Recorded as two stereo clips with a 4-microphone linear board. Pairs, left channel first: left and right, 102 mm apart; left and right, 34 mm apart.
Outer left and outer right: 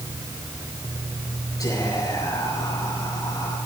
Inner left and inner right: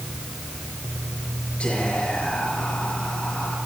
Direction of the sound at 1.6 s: 40° left (ahead or behind).